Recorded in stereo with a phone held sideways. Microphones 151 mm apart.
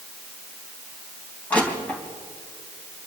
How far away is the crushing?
About 3.5 m.